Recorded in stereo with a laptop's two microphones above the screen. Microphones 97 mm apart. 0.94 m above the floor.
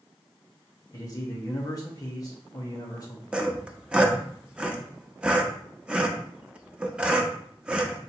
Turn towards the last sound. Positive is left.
turn(degrees=-10)  # may be behind; listen again after turning